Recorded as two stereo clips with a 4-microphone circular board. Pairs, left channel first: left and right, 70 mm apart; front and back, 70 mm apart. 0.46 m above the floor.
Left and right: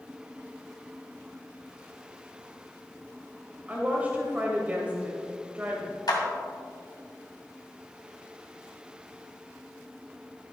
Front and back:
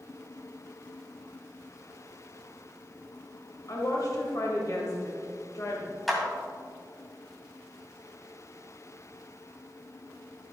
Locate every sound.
3.7 s a woman speaking: 25° right, 1.8 m
6.1 s a clap: 90° left, 2 m